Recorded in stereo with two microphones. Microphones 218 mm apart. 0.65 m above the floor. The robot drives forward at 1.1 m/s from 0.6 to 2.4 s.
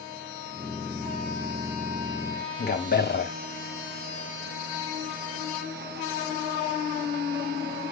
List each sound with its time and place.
2.6 s a man speaking: 50° left (ahead or behind), 1.0 m